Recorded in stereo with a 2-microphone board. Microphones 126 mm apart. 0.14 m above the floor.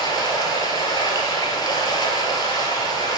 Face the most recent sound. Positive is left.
turn(degrees=35)  # may be behind; listen again after turning